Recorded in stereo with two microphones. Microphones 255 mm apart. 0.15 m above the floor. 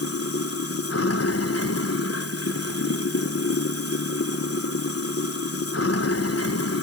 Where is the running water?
65° left (ahead or behind), 0.8 m.